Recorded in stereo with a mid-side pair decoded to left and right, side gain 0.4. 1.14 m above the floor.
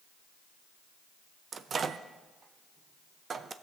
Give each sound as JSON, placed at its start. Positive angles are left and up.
{"t": 1.5, "sound": "a microwave", "azimuth_deg": -50, "distance_m": 0.6}